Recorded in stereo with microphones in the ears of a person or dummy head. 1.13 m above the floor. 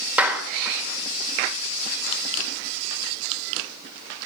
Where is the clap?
5° right (ahead or behind), 1.8 m.